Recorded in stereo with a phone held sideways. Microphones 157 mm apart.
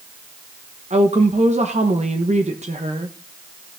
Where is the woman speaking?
45° right (ahead or behind), 1.1 m.